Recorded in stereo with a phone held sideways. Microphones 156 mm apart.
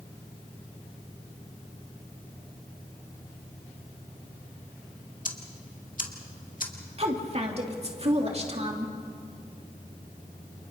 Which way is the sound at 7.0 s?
40° right (ahead or behind).